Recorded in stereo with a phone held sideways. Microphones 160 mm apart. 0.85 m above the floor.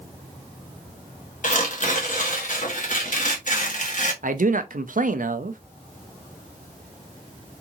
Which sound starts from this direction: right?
A man speaking, at 4.2 s.